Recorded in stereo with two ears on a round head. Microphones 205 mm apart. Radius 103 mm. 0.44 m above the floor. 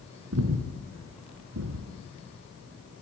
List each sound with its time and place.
0.3 s breathing: 75° right (ahead or behind), 2.5 m